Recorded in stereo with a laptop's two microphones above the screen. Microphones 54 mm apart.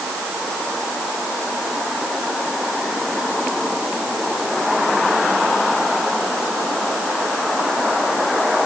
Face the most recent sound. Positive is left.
No sound to turn to.